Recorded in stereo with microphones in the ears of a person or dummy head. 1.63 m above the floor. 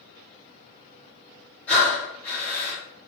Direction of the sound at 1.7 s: 10° left (ahead or behind).